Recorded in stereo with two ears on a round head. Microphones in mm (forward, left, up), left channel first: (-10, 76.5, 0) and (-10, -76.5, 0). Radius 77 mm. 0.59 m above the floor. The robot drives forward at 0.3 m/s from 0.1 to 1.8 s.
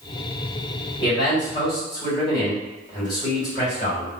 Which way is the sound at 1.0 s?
25° left (ahead or behind).